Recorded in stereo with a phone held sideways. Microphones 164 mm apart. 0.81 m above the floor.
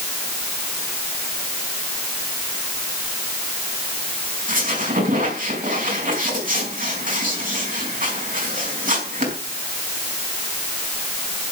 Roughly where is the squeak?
Right.